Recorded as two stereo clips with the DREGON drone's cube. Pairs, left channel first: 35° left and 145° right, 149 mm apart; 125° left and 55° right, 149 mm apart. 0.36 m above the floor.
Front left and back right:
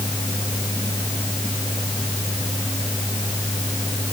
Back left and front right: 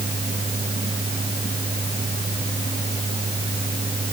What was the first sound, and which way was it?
Only background noise.